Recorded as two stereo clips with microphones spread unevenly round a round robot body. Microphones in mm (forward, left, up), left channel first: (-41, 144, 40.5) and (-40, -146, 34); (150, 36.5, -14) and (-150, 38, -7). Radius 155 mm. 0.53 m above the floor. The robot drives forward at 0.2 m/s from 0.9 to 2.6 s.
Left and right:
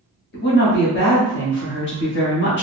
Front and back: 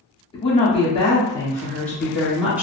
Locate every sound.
0.3 s a woman speaking: 60° left, 0.9 m; by 2.6 s 100° left, 0.8 m